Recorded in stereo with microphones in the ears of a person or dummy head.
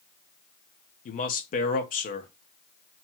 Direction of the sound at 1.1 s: 40° left (ahead or behind).